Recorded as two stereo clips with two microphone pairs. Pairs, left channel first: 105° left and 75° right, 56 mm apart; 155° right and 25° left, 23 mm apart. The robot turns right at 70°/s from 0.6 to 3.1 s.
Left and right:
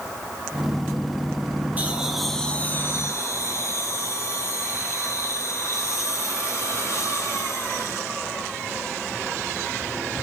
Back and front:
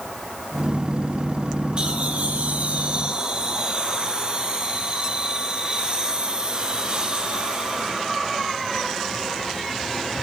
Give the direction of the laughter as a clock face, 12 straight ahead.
1 o'clock.